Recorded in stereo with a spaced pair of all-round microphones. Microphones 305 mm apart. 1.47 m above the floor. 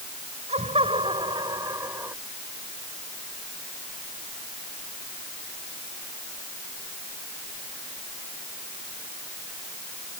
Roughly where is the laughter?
Right.